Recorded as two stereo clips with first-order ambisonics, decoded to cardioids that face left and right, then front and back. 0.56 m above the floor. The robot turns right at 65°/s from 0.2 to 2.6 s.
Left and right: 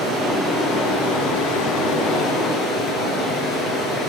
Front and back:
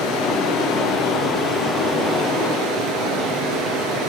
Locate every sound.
0.0 s running water: 5° left, 5.5 m; by 4.1 s 160° left, 5.5 m